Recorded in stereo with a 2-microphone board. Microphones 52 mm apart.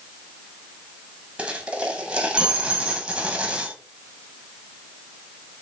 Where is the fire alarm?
No fire alarm in this recording.